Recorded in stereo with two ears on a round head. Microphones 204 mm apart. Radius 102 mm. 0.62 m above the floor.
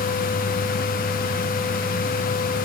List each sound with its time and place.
Only background noise.